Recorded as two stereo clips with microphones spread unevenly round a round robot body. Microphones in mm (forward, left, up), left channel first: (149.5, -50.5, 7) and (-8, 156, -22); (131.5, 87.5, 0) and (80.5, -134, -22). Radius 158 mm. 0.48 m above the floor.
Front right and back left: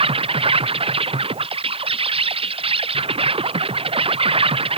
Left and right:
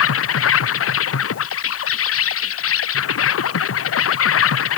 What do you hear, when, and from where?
0.0 s an insect: 60° left